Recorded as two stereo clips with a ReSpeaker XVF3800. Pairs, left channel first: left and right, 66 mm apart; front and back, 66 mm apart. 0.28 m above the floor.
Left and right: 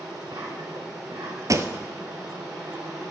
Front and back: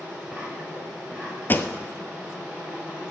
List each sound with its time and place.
0.0 s an insect: 105° right, 5.5 m
1.5 s a pop: 60° right, 0.9 m